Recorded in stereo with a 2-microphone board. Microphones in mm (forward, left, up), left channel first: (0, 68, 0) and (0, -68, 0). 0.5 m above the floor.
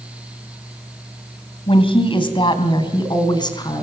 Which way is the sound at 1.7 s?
45° left (ahead or behind).